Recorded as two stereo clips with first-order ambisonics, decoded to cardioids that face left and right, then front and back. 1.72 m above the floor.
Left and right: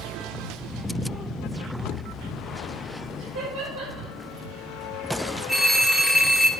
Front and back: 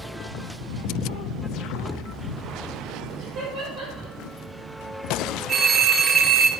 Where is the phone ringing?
165° right, 0.6 m.